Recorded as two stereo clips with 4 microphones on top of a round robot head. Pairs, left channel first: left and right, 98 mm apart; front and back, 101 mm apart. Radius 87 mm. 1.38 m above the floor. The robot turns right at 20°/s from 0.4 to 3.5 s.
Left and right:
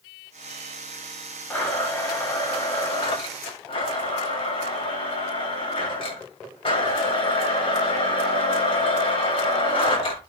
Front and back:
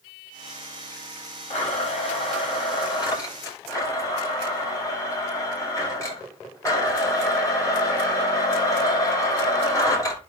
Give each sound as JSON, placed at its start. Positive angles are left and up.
{"t": 1.5, "sound": "a blender", "azimuth_deg": 20, "distance_m": 9.0}